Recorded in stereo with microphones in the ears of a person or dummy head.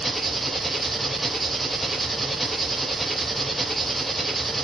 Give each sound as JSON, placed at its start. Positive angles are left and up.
{"t": 0.0, "sound": "an engine running", "side_deg": 0, "distance_m": 1.0}